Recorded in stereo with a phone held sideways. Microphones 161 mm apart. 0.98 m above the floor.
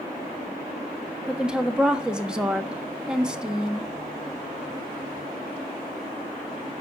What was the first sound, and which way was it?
A woman speaking, 5° right (ahead or behind).